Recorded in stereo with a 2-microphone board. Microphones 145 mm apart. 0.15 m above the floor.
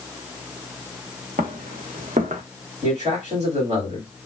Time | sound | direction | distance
1.4 | footsteps | 80° right | 1.4 m
2.8 | a man speaking | 50° right (ahead or behind) | 2.5 m